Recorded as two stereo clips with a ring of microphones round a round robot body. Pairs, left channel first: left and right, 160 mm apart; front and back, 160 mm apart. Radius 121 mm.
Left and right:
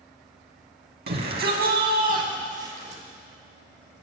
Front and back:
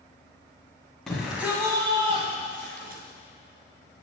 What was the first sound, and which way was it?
A shout, 90° right.